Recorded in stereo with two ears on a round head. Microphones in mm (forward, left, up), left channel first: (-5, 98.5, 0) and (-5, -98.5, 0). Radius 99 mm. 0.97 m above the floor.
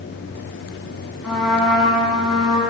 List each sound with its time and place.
1.2 s a trumpet: centre (ahead or behind), 7 m